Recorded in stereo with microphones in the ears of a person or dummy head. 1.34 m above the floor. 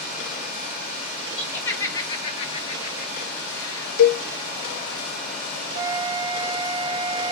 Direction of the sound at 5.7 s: 30° right (ahead or behind).